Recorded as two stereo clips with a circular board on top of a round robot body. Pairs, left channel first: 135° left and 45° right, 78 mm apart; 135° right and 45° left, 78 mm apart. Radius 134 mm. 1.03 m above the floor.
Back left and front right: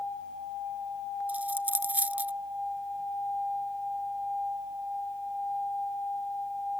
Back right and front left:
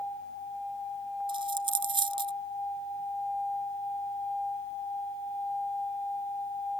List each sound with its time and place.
1.3 s a dropped coin: 30° left